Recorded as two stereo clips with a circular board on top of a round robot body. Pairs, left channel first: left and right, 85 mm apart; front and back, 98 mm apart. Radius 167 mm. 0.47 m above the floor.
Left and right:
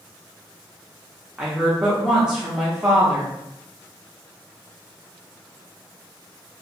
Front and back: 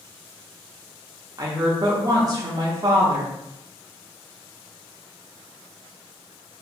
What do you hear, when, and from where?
1.4 s a woman speaking: 170° right, 0.8 m